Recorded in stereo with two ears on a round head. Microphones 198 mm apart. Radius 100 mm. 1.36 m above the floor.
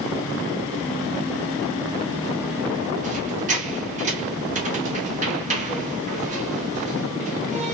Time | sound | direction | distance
3.0 | a squeak | 35° right (ahead or behind) | 0.8 m